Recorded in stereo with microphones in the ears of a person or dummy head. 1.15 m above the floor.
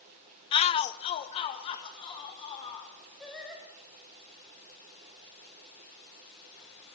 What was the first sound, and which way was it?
A shout, 20° left (ahead or behind).